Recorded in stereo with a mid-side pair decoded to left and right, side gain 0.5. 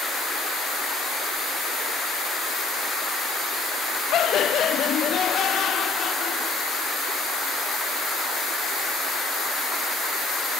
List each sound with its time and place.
4.1 s laughter: 60° left, 0.6 m; by 7.0 s 55° left, 2.5 m